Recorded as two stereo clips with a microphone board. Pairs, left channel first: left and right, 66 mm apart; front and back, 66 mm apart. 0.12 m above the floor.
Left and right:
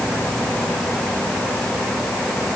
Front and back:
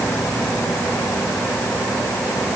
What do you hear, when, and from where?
Only background noise.